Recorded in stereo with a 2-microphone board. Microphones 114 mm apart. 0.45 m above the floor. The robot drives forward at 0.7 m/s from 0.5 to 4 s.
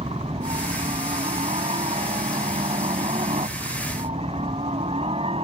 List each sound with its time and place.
0.0 s a helicopter: 60° right (ahead or behind)